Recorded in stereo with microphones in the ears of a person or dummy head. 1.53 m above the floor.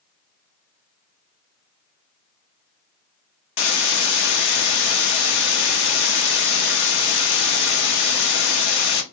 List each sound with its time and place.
3.6 s a hiss: 60° left (ahead or behind), 0.5 m